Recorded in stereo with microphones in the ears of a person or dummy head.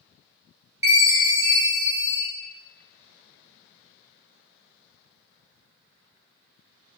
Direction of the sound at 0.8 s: 20° right (ahead or behind).